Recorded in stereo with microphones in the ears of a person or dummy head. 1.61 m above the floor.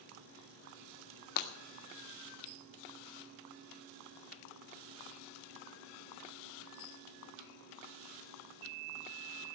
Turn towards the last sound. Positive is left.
turn(degrees=55)  # may be behind; listen again after turning